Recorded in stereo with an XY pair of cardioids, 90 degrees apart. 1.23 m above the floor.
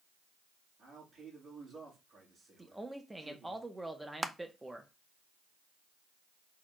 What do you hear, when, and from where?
0.8 s a man speaking: 55° right, 3 m
2.6 s a man speaking: 10° right, 1.2 m
4.2 s crushing: 10° right, 0.6 m